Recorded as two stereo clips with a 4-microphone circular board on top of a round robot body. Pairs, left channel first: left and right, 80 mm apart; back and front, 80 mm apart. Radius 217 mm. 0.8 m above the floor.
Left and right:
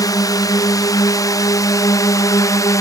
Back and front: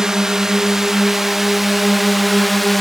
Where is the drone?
80° left; by 2.8 s 90° left.